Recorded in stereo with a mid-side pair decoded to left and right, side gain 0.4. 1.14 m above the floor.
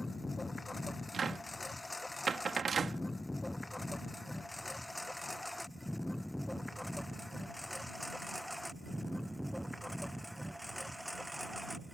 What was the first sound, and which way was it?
A lawn mower, 25° left.